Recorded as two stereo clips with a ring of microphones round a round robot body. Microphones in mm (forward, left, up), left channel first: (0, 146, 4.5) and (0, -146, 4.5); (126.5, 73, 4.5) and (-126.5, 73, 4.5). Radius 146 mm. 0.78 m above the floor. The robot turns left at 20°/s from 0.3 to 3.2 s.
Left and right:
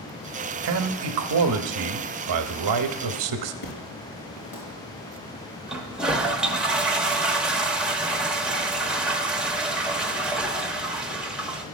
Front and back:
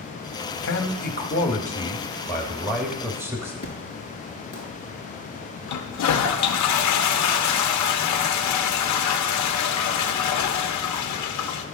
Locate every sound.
0.6 s a man speaking: 45° right, 0.8 m; by 3.5 s 100° right, 0.8 m
3.6 s an explosion: 75° left, 4 m
5.7 s a toilet flushing: 5° right, 0.7 m